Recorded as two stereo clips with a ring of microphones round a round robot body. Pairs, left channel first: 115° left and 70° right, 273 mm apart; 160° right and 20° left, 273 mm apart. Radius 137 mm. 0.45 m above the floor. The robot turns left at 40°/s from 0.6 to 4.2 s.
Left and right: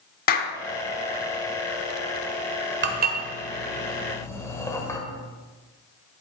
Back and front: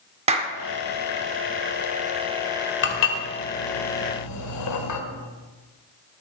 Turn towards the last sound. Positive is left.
turn(degrees=-170)